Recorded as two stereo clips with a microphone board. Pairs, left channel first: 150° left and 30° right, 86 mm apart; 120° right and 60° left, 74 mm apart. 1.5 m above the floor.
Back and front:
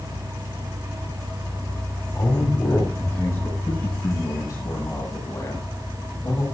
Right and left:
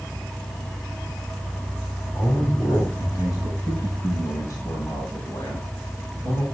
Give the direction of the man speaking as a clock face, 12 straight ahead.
5 o'clock.